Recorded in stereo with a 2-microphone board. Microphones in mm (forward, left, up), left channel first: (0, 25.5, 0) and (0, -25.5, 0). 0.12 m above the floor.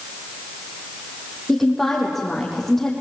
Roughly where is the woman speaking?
Centre.